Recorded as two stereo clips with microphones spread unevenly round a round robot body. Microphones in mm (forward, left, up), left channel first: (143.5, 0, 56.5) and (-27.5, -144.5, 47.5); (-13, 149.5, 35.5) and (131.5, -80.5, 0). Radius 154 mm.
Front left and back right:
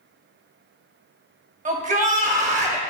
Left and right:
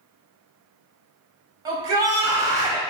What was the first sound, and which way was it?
A shout, 120° right.